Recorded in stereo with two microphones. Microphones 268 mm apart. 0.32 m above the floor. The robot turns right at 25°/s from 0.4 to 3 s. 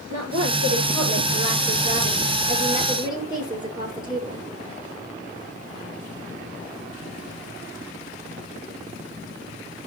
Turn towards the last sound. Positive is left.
turn(degrees=-15)